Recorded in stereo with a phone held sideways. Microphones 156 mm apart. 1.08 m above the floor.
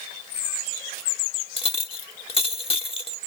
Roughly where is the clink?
Left.